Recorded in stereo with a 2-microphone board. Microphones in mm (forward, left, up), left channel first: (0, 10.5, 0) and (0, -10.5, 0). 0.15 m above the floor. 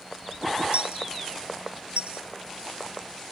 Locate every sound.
0.7 s a dropped coin: 75° right (ahead or behind)